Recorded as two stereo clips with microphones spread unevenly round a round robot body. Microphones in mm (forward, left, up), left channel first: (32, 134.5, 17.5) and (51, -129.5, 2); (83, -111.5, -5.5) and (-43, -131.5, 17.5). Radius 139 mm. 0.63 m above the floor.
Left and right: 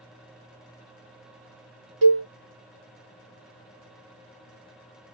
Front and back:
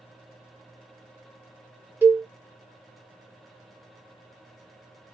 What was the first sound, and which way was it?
A cowbell, 100° right.